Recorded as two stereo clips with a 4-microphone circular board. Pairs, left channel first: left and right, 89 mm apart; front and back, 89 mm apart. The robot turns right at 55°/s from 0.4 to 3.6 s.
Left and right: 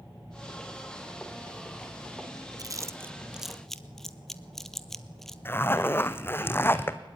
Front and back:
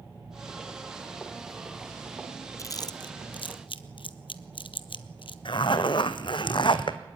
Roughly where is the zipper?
Ahead left.